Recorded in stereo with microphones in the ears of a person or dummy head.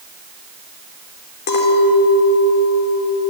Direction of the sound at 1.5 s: 65° left (ahead or behind).